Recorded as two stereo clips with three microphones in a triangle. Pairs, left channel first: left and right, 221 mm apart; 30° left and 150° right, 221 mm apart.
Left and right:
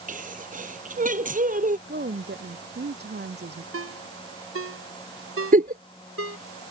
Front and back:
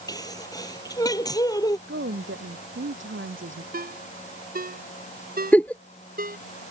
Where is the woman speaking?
130° right.